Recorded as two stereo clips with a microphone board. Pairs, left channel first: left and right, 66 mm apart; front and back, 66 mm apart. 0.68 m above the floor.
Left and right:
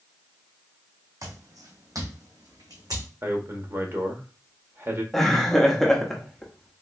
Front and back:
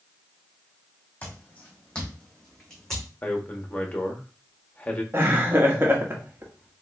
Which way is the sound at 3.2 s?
60° right.